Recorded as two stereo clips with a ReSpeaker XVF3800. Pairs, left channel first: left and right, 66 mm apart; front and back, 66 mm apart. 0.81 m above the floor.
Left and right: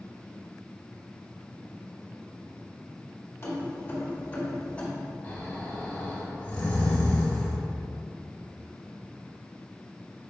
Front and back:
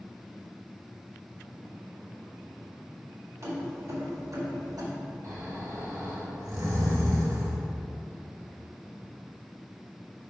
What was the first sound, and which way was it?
Keys jangling, 140° left.